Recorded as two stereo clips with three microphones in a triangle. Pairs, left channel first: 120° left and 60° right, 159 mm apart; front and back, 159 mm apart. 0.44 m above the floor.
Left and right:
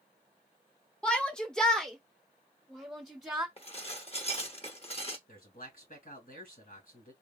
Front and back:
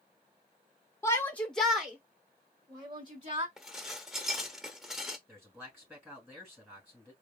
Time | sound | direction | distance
1.0 | a shout | 45° left | 1.0 m
3.6 | dishes clattering | 95° left | 0.8 m
5.3 | a man speaking | 105° left | 3 m